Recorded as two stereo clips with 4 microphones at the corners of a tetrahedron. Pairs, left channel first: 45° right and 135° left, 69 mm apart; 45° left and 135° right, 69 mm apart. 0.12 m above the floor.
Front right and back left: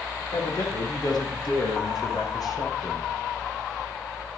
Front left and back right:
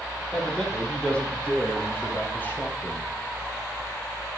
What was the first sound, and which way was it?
A man speaking, 40° right.